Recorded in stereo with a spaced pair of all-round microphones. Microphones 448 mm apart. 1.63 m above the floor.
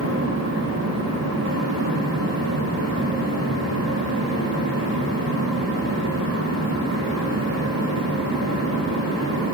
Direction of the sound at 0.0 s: 35° right (ahead or behind).